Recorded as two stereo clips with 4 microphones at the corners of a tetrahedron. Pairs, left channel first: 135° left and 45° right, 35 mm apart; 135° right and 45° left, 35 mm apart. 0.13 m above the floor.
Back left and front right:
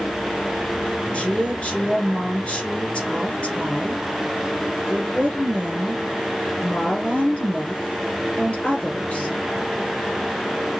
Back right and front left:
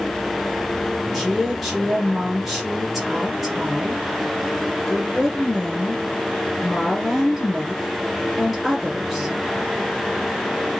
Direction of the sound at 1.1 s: 140° left.